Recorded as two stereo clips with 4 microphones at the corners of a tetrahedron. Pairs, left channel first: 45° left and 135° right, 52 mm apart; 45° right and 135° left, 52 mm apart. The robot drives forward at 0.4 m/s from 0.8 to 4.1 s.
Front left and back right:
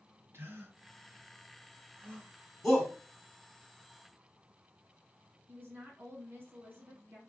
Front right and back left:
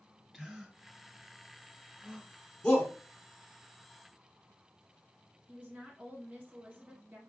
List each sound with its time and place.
0.3 s a gasp: 135° right, 1.7 m; by 2.3 s 150° right, 2 m
2.6 s a shout: 35° right, 1.1 m; by 2.9 s 45° right, 1.1 m
5.5 s a woman speaking: 165° right, 1.9 m